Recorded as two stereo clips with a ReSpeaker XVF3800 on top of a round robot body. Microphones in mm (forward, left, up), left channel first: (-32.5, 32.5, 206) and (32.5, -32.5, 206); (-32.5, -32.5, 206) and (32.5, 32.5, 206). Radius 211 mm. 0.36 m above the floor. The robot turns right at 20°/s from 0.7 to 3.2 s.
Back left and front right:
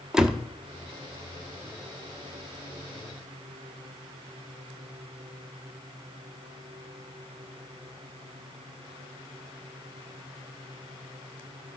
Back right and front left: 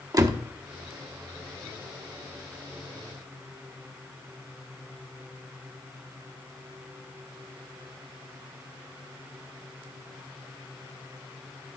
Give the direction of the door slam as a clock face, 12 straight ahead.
11 o'clock.